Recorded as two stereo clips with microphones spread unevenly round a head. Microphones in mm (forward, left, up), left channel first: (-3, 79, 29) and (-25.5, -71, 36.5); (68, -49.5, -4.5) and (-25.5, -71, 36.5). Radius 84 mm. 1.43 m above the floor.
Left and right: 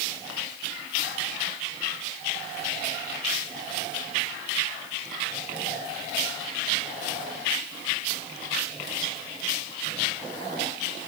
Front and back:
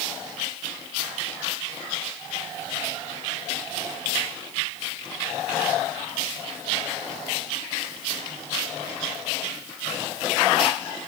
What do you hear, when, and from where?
Only background noise.